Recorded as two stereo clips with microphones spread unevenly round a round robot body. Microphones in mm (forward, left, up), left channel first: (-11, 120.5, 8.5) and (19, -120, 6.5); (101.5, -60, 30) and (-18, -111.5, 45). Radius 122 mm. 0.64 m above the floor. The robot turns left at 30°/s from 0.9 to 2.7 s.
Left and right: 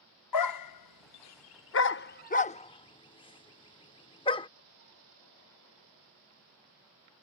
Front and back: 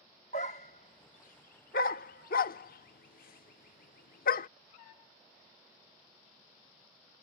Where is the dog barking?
80° left; by 4.5 s 25° left.